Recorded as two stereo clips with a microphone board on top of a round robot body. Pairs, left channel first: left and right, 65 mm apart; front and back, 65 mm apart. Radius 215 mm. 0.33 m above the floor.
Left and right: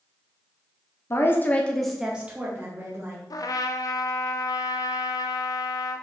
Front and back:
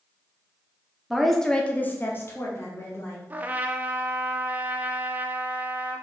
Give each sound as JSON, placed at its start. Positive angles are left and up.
{"t": 1.1, "sound": "a woman speaking", "azimuth_deg": 95, "distance_m": 1.6}
{"t": 3.3, "sound": "a trumpet", "azimuth_deg": 115, "distance_m": 0.5}